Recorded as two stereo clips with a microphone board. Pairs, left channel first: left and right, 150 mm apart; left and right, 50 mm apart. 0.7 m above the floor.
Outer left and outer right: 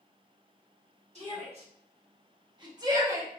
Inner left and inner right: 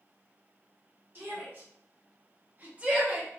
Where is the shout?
45° right (ahead or behind), 1.6 m; by 3.4 s 15° right (ahead or behind), 0.8 m.